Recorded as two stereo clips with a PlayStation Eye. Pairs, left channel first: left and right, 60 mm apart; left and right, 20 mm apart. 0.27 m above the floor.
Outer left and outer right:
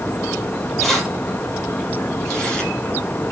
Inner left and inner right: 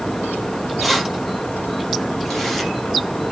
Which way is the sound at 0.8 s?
Centre (ahead or behind).